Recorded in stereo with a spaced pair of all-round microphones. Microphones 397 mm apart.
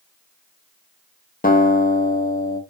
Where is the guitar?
25° left (ahead or behind), 0.5 m.